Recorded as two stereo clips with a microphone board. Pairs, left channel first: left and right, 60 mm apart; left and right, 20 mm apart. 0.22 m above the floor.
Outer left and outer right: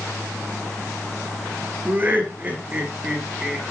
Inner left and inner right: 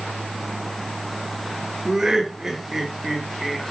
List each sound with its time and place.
1.9 s laughter: 30° right (ahead or behind), 4 m; by 3.6 s 15° right (ahead or behind), 3.5 m